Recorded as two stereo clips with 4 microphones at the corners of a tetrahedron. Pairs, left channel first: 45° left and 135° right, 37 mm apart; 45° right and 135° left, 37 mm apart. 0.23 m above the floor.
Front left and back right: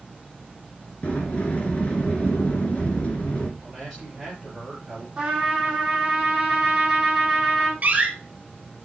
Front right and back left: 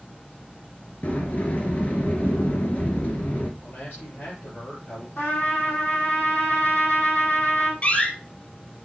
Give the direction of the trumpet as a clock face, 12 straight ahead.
2 o'clock.